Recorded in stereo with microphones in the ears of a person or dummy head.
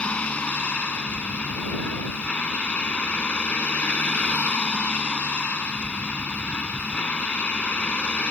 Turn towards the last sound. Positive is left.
turn(degrees=5)  # may be behind; listen again after turning